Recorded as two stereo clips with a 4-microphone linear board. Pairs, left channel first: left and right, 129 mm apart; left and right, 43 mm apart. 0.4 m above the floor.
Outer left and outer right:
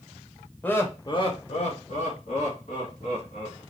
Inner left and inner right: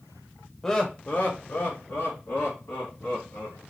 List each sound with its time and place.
0.6 s laughter: 15° left (ahead or behind), 1.1 m; by 3.6 s 70° left (ahead or behind), 3.5 m